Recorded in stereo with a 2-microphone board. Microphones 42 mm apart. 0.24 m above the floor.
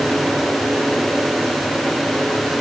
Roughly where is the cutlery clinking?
I don't hear cutlery clinking.